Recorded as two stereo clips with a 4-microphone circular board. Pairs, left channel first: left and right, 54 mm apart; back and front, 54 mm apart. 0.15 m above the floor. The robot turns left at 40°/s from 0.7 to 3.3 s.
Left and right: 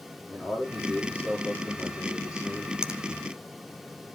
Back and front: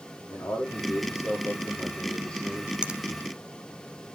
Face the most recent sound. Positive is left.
turn(degrees=-55)